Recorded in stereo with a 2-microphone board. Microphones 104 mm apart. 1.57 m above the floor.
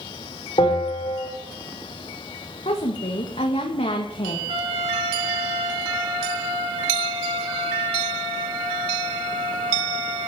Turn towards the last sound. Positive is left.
turn(degrees=-65)  # may be behind; listen again after turning